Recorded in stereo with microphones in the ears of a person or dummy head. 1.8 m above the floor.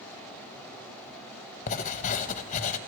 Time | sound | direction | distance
1.7 | writing | 40° left (ahead or behind) | 0.8 m